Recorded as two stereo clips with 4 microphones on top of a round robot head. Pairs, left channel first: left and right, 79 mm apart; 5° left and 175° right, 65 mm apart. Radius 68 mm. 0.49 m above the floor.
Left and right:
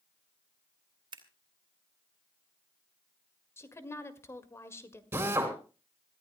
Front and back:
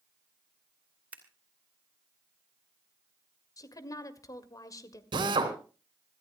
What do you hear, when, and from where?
1.1 s scissors: 105° right, 2.5 m
3.6 s a woman speaking: 35° left, 1.8 m
5.1 s a drill: 160° right, 3 m